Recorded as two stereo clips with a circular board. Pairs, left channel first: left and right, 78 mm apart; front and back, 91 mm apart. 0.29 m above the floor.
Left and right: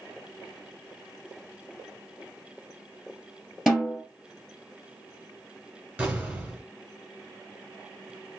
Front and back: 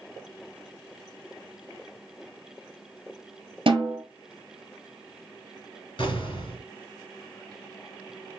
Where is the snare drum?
175° right, 1.1 m.